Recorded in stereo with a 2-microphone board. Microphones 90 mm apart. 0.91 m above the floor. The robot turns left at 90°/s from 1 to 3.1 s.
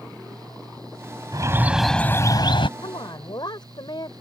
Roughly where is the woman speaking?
Left.